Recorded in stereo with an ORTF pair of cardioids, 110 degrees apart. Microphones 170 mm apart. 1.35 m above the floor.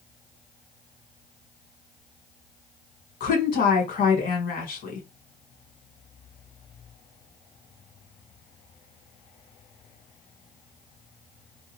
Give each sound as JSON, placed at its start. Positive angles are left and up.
{"t": 3.2, "sound": "a woman speaking", "azimuth_deg": 55, "distance_m": 1.7}